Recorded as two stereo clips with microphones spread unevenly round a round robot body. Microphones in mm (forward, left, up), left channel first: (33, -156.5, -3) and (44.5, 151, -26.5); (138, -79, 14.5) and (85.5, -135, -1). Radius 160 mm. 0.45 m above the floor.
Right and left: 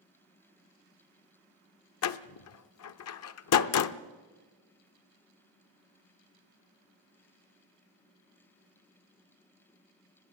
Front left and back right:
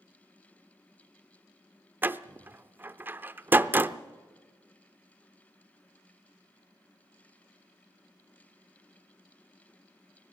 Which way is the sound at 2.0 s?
100° right.